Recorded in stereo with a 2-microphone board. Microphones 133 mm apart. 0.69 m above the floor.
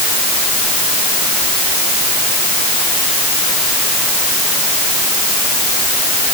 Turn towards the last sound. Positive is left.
No sound to turn to.